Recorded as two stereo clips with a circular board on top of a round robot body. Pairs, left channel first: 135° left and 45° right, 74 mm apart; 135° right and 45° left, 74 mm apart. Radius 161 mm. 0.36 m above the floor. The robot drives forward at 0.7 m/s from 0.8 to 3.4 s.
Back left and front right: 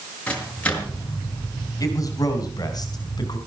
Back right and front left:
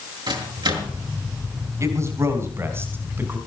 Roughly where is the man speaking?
Left.